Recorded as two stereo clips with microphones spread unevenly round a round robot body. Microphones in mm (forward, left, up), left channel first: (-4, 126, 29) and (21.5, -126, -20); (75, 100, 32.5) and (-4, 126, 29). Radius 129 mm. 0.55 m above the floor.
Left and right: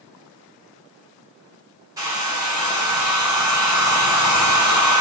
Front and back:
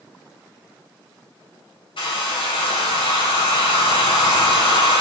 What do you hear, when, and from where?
2.0 s a hair dryer: 10° right, 2 m